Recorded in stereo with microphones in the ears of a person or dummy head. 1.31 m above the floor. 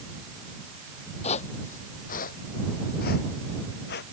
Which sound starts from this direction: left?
Footsteps, at 1.2 s.